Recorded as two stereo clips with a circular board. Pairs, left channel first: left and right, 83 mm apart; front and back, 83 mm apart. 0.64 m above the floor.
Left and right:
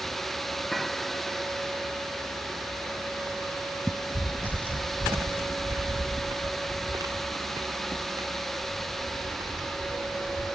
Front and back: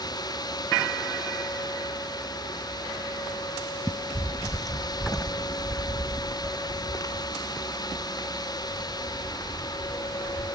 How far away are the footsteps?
About 0.7 m.